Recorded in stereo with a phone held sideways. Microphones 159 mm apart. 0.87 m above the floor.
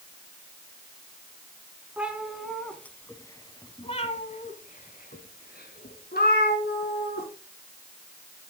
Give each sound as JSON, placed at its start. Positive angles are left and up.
{"t": 2.0, "sound": "a cat meowing", "side_deg": -5, "distance_m": 1.8}